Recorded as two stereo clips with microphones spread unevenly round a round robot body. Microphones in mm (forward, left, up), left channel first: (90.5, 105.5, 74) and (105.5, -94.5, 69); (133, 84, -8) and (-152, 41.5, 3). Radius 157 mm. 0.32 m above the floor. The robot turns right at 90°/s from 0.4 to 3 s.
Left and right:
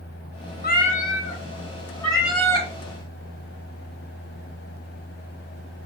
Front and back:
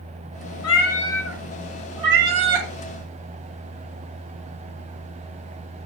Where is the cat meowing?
45° left, 1.8 m; by 2.7 s 130° right, 1.8 m.